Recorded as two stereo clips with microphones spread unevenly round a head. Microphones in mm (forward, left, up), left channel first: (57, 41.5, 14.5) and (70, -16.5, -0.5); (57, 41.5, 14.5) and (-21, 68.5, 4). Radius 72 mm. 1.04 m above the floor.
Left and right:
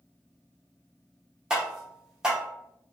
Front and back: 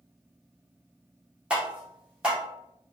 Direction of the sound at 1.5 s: 135° right.